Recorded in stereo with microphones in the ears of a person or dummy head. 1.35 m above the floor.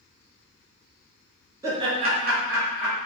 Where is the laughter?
25° right (ahead or behind), 0.6 m; by 3.0 s 45° right (ahead or behind), 0.8 m.